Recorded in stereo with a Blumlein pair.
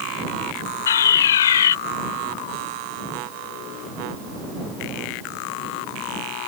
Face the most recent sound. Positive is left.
turn(degrees=65)